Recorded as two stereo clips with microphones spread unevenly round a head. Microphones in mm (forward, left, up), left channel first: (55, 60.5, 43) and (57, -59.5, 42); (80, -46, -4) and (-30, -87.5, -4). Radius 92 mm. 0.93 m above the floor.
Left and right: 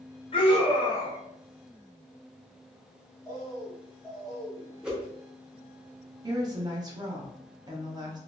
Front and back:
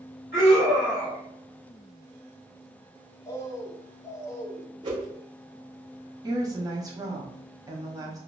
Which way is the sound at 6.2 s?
120° right.